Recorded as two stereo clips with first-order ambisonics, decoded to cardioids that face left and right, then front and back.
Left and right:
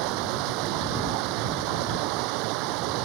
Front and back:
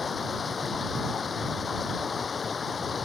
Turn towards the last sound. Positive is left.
turn(degrees=-70)